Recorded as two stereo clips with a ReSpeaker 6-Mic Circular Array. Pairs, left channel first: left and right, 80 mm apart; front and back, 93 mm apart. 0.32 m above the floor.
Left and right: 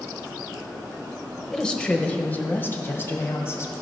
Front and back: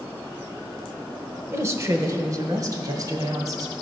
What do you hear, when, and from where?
1.5 s a woman speaking: 165° left, 1.0 m; by 3.7 s 140° left, 1.8 m